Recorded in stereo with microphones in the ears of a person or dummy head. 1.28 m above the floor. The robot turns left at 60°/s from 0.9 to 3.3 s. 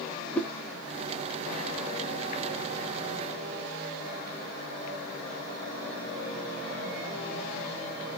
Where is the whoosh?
5° left (ahead or behind), 0.6 m.